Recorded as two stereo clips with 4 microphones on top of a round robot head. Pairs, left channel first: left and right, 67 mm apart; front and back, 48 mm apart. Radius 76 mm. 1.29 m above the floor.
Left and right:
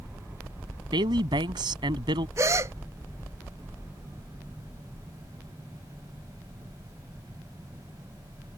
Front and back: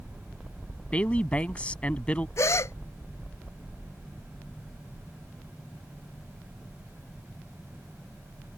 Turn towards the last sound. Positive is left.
turn(degrees=-35)